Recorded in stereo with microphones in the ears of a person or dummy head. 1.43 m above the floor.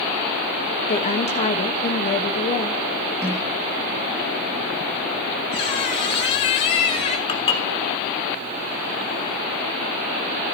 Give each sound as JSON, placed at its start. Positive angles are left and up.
{"t": 0.9, "sound": "a woman speaking", "side_deg": 30, "distance_m": 0.9}
{"t": 3.2, "sound": "a snare drum", "side_deg": -15, "distance_m": 7.0}
{"t": 5.5, "sound": "a squeak", "side_deg": 25, "distance_m": 1.3}
{"t": 7.3, "sound": "dishes clattering", "side_deg": 25, "distance_m": 1.2}